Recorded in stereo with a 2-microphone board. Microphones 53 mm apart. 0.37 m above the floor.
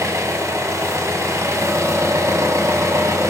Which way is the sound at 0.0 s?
70° right (ahead or behind).